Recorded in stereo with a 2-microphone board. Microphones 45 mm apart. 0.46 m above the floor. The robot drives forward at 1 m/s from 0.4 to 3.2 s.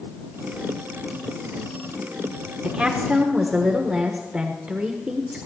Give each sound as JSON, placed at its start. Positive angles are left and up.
{"t": 2.6, "sound": "a woman speaking", "side_deg": -20, "distance_m": 1.0}